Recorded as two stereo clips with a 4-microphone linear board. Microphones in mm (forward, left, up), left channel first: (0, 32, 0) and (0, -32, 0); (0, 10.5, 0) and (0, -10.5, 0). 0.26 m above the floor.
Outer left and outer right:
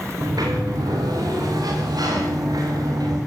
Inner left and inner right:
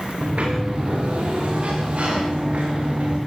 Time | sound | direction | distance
0.2 | a sliding door | 75° right (ahead or behind) | 8.5 m